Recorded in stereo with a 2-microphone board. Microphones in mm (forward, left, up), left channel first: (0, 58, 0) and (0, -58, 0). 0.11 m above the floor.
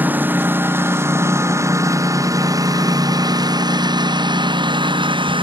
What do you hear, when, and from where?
0.0 s a lawn mower: 15° right (ahead or behind); by 5.4 s 45° right (ahead or behind)